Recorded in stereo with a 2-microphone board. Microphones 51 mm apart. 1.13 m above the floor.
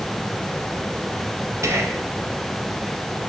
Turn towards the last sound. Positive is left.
turn(degrees=-70)  # may be behind; listen again after turning